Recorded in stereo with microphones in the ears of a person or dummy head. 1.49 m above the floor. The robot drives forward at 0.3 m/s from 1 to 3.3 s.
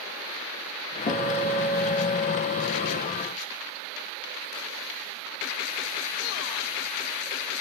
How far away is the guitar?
About 1.0 m.